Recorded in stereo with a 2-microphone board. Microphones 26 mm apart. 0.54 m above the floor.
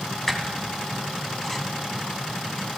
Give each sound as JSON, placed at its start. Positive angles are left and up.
{"t": 0.3, "sound": "a squeak", "side_deg": 5, "distance_m": 1.3}